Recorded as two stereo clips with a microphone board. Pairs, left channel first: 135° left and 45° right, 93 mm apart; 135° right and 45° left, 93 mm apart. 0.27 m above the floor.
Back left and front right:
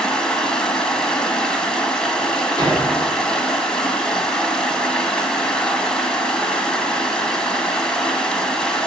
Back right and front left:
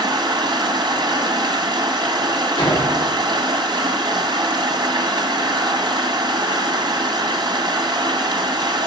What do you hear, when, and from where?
0.0 s running water: 55° left, 1.8 m
2.6 s a door slam: 90° right, 5.5 m